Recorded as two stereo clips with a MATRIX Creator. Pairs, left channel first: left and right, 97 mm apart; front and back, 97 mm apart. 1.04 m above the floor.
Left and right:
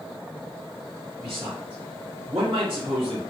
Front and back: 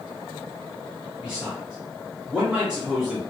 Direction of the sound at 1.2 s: 100° right.